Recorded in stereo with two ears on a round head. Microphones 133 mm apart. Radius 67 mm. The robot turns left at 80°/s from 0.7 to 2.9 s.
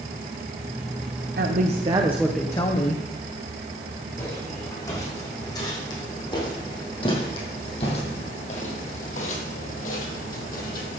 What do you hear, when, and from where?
1.4 s a woman speaking: 105° right, 1.2 m; by 3.0 s 130° left, 1.2 m
4.2 s footsteps: 20° left (ahead or behind), 6 m; by 11.0 s 65° left (ahead or behind), 3.5 m